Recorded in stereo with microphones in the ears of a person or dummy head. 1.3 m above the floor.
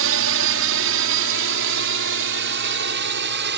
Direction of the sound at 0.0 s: 65° right (ahead or behind).